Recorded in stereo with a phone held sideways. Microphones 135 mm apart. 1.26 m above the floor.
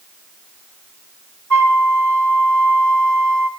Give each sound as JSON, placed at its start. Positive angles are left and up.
{"t": 1.5, "sound": "a flute", "side_deg": 10, "distance_m": 6.0}